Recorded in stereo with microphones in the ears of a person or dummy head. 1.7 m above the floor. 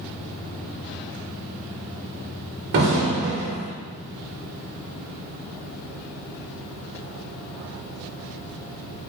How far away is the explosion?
About 1.1 m.